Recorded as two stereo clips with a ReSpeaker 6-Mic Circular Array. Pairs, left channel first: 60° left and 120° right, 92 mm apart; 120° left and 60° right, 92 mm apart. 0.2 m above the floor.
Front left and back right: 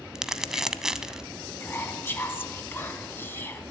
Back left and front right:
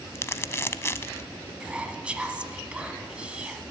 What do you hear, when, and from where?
0.1 s crumpling: 160° left, 0.6 m
1.6 s whispering: 10° left, 1.3 m